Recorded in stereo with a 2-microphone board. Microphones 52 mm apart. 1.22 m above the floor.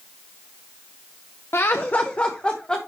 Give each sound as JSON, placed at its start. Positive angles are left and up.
{"t": 1.5, "sound": "laughter", "side_deg": 55, "distance_m": 0.7}